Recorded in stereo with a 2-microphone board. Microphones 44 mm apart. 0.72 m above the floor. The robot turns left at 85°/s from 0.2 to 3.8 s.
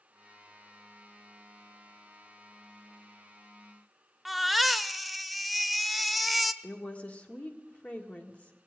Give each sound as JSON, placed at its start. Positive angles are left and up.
{"t": 4.2, "sound": "a baby crying", "side_deg": 0, "distance_m": 0.5}
{"t": 6.6, "sound": "a woman speaking", "side_deg": 35, "distance_m": 1.6}